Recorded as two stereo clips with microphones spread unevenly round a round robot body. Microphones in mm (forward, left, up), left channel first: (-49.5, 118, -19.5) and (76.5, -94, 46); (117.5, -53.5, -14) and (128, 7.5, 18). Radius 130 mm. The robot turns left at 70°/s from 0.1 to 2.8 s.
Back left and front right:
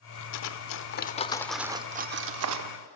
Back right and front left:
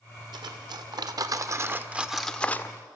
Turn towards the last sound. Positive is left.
turn(degrees=-55)